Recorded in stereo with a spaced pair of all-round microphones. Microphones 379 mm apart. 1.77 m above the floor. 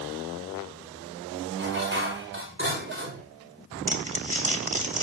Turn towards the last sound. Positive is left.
turn(degrees=-20)  # may be behind; listen again after turning